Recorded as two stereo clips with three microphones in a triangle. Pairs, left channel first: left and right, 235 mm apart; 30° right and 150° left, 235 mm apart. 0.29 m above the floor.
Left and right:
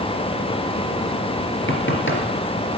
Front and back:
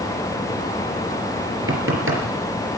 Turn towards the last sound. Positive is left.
turn(degrees=125)